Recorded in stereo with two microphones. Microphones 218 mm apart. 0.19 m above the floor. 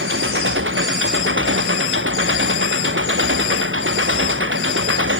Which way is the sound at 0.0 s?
65° right (ahead or behind).